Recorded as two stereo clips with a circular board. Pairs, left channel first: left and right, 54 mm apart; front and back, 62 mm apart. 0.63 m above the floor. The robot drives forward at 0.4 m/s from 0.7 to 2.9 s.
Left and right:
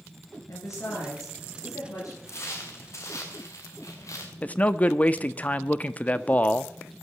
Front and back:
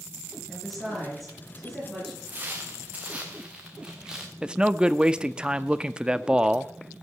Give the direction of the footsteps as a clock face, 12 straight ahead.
8 o'clock.